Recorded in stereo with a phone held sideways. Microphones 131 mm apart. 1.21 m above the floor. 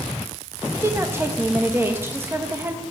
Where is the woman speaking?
15° right (ahead or behind), 1.3 m.